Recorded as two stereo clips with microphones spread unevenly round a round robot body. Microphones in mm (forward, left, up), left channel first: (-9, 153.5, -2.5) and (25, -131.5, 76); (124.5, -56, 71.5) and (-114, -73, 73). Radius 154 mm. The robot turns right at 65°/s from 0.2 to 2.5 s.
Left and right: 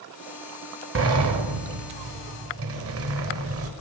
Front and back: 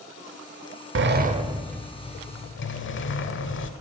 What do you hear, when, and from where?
0.9 s a sliding door: 135° right, 0.9 m; by 3.7 s 35° right, 0.9 m